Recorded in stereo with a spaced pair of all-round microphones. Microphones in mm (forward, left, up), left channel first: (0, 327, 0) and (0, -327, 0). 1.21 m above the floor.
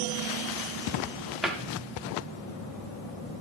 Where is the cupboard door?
Centre (ahead or behind), 1.0 m.